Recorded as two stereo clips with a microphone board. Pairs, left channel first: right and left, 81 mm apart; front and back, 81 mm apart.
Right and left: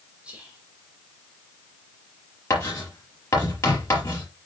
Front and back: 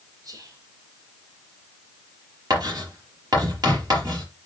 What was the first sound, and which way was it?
Whispering, 165° left.